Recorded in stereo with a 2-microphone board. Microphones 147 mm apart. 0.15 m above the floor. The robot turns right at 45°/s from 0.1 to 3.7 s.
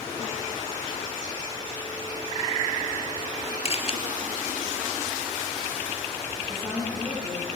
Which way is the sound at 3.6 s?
45° left (ahead or behind).